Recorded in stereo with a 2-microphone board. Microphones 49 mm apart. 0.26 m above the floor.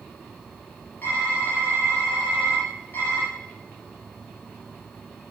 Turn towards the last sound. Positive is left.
turn(degrees=45)  # may be behind; listen again after turning